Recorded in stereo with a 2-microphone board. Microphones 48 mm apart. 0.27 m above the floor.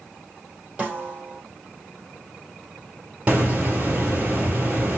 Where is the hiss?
30° right (ahead or behind), 1.8 m.